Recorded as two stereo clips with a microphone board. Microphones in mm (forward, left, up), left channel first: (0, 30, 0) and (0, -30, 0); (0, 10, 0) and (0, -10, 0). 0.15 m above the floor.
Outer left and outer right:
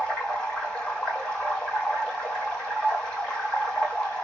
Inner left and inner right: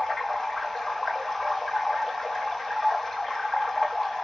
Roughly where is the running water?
Centre.